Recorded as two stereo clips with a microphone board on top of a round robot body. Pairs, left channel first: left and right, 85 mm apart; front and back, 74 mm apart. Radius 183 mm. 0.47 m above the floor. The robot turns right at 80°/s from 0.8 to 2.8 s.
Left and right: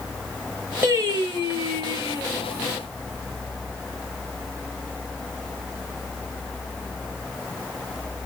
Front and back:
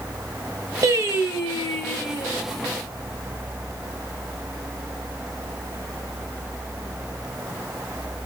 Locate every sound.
0.8 s singing: 155° right, 1.7 m; by 2.3 s 35° right, 1.7 m